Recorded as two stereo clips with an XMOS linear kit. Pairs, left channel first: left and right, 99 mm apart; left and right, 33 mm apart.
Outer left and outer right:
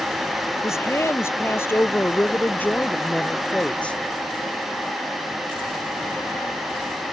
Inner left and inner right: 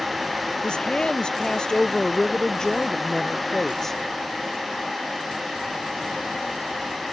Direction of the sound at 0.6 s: 30° left (ahead or behind).